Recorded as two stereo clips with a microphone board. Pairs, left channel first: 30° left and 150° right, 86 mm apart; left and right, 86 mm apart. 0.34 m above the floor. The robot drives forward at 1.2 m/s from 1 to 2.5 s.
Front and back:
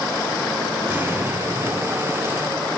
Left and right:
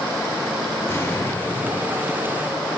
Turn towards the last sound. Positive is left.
turn(degrees=160)